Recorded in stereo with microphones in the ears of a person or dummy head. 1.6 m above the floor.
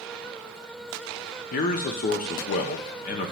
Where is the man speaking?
45° left (ahead or behind), 0.7 m.